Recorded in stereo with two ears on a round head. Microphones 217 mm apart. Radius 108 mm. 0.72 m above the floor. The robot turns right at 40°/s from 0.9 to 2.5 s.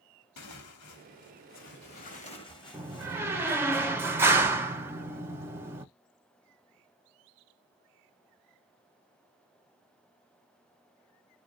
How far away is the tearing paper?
About 1.1 m.